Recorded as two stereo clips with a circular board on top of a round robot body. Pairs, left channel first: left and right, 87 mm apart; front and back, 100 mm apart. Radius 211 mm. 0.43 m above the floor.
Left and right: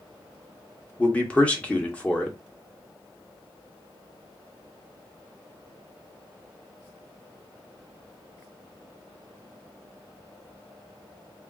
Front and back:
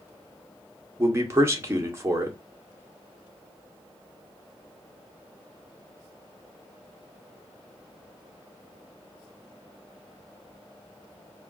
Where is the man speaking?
150° left, 1.3 m.